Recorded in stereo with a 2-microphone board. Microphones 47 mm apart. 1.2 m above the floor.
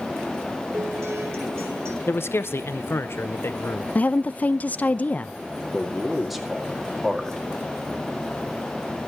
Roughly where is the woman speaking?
Left.